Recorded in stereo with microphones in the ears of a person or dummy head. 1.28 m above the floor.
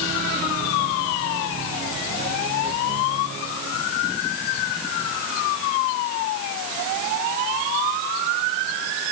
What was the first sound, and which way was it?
Only background noise.